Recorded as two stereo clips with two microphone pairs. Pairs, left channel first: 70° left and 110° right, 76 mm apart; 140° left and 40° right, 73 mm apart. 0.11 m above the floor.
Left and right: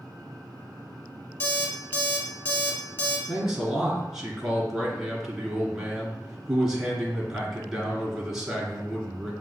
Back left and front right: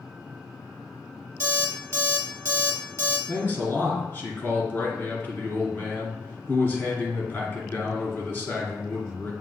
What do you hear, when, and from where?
1.4 s an alarm clock: 10° left, 1.8 m
3.3 s a man speaking: 170° left, 1.5 m